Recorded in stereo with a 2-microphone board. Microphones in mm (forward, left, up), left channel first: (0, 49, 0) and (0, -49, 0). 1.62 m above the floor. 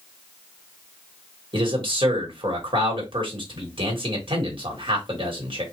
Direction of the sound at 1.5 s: 60° right (ahead or behind).